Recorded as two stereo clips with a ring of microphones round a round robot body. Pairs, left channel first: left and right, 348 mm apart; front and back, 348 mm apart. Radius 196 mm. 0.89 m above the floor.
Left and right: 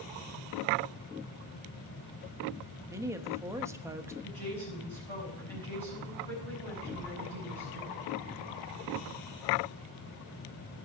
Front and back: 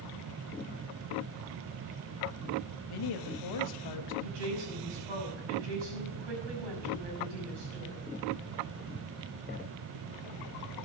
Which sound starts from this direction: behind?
A woman speaking, at 4.2 s.